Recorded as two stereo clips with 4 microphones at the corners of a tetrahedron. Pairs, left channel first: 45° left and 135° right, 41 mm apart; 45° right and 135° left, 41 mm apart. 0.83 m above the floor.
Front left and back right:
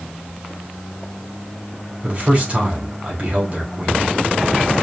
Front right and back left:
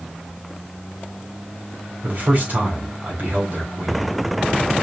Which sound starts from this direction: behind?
A man speaking, at 2.0 s.